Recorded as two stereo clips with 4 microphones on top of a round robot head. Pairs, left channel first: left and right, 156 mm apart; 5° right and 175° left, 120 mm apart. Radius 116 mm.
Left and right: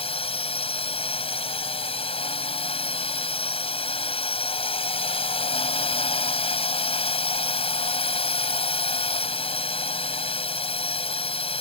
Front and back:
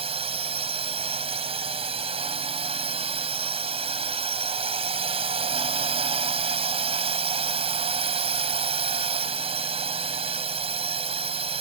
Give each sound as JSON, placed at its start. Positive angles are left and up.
{"t": 0.0, "sound": "a drone", "azimuth_deg": 140}